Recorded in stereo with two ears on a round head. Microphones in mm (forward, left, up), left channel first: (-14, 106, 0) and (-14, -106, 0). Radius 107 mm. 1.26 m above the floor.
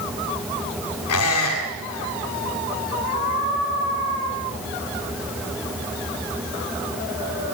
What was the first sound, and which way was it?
A squeak, 75° left (ahead or behind).